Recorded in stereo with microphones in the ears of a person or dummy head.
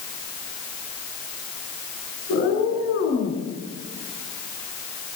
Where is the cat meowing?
50° left (ahead or behind), 8.5 m; by 3.4 s 40° left (ahead or behind), 7.5 m.